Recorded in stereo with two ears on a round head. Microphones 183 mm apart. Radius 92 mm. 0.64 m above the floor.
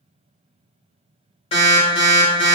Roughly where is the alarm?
Left.